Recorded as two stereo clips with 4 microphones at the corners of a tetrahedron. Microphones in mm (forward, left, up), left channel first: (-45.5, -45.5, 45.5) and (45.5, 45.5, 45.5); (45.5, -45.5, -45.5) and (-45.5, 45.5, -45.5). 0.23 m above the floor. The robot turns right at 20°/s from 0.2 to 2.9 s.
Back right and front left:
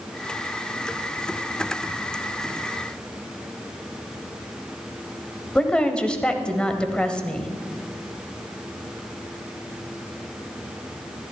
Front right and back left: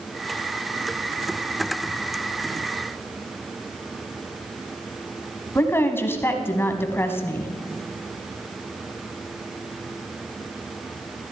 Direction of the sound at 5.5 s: 65° right.